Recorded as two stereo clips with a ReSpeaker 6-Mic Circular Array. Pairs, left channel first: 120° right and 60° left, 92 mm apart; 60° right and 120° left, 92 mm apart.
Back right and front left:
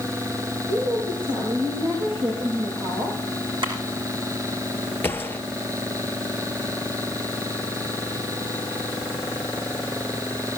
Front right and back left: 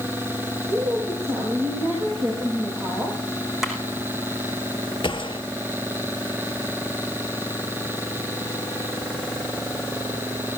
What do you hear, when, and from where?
0.7 s a woman speaking: 55° left, 9.5 m
3.6 s a clap: 35° left, 6.5 m
5.0 s a gunshot: 55° right, 1.5 m